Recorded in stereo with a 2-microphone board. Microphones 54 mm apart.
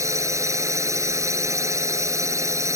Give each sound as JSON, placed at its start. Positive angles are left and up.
{"t": 0.0, "sound": "a drone", "side_deg": -65}